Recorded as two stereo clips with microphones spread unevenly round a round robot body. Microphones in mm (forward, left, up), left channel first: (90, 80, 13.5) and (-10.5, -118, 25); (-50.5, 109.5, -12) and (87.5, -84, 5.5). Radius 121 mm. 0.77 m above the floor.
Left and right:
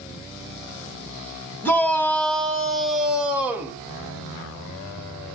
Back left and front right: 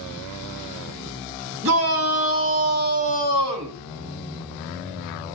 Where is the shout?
20° right, 5 m; by 3.8 s 35° right, 3.5 m.